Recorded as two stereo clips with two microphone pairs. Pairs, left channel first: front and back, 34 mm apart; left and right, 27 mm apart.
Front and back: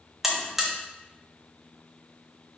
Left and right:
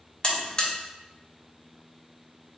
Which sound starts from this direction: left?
A buzzer, at 0.2 s.